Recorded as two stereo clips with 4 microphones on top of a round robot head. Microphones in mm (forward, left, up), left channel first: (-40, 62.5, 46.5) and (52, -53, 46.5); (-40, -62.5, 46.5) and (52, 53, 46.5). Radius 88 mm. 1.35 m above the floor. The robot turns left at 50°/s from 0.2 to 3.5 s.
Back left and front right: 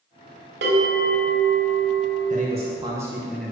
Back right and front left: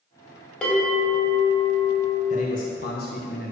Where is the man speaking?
90° right, 1.5 m; by 3.5 s 150° right, 1.5 m.